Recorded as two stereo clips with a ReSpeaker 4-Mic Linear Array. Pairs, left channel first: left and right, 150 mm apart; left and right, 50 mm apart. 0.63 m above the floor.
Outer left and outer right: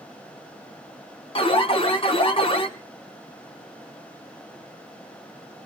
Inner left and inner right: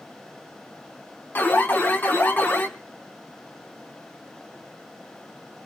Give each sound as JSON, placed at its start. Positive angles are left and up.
{"t": 1.4, "sound": "an alarm", "side_deg": 40, "distance_m": 1.3}